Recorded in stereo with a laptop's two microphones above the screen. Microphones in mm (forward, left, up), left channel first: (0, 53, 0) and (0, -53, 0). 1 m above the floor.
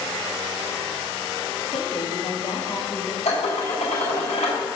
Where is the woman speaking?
70° left (ahead or behind), 2 m; by 3.1 s 20° left (ahead or behind), 1.2 m.